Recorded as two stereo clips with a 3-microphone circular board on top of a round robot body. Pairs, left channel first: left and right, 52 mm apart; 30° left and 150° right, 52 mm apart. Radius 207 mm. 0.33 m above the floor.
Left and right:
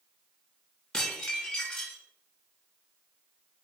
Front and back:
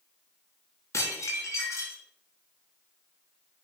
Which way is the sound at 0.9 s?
15° left.